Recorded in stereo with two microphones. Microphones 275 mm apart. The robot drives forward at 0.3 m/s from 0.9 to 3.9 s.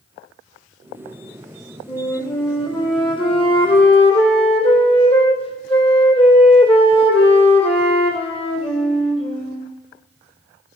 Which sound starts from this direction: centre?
A flute, at 1.9 s.